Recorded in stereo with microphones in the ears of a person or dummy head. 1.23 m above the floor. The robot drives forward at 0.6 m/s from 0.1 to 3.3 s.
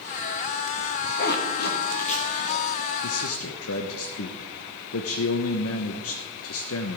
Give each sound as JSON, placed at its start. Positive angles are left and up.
{"t": 1.2, "sound": "a zipper", "side_deg": 60, "distance_m": 1.3}
{"t": 3.0, "sound": "a man speaking", "side_deg": 80, "distance_m": 0.9}